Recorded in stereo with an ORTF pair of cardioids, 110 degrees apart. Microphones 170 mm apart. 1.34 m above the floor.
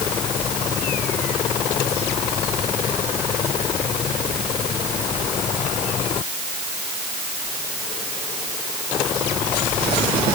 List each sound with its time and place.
Only background noise.